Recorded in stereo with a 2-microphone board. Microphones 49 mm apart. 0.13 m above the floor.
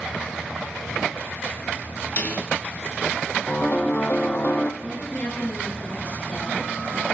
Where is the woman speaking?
35° left (ahead or behind), 6.5 m.